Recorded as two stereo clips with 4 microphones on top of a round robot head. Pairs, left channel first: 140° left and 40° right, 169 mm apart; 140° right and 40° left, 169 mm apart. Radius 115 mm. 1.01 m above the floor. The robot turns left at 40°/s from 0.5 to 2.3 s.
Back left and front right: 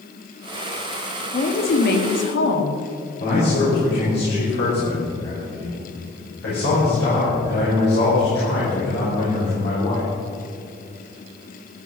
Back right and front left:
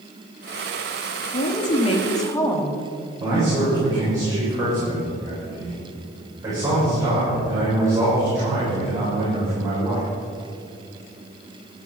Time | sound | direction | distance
1.3 | a woman speaking | 175° right | 2 m
3.2 | a man speaking | 115° left | 6 m